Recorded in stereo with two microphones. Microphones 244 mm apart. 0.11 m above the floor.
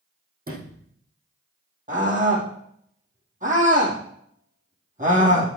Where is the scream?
30° right (ahead or behind), 5.5 m.